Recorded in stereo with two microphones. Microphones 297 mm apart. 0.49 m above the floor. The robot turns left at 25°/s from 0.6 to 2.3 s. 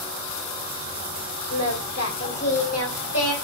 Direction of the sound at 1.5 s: 60° left (ahead or behind).